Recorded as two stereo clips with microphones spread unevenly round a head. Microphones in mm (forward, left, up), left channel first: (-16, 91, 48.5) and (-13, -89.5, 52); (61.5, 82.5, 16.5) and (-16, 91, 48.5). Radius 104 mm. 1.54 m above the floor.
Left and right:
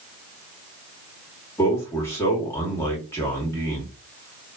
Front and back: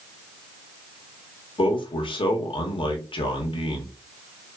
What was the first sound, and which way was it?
A man speaking, 15° left.